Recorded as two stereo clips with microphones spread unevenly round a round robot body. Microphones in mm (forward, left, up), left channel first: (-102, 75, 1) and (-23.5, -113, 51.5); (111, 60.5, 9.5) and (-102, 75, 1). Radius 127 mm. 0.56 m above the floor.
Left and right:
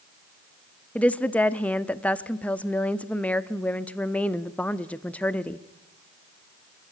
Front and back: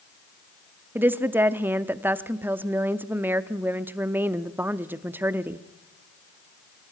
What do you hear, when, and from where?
0.9 s a woman speaking: 120° left, 0.6 m